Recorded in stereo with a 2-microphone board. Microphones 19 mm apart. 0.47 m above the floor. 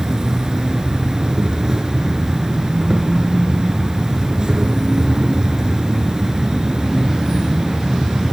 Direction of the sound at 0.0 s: 35° right (ahead or behind).